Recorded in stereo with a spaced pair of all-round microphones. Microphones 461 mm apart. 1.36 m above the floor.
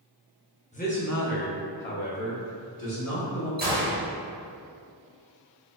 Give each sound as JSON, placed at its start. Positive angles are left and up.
{"t": 0.7, "sound": "a man speaking", "side_deg": 15, "distance_m": 0.7}
{"t": 3.6, "sound": "a gunshot", "side_deg": -20, "distance_m": 1.2}